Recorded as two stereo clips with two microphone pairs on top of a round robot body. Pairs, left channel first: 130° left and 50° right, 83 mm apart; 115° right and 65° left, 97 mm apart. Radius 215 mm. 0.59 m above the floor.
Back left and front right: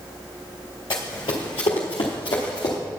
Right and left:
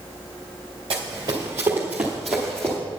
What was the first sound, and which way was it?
Running footsteps, 105° left.